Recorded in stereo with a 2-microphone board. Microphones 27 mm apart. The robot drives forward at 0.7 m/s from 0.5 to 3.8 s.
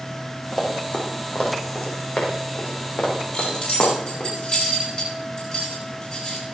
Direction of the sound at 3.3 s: 35° left (ahead or behind).